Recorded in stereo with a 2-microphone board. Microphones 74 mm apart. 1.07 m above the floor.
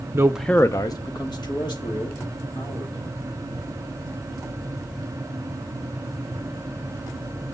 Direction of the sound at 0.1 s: 40° right (ahead or behind).